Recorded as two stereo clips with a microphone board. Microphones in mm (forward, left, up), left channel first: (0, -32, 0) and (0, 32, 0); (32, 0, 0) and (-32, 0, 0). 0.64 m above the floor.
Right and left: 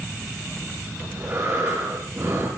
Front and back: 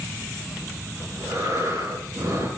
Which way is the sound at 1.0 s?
135° left.